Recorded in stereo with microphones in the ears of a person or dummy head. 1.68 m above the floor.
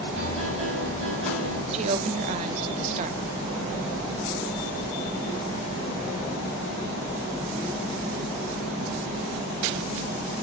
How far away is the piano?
About 4.5 m.